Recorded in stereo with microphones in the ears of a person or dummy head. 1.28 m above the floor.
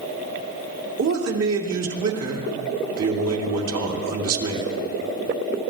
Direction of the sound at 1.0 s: 90° right.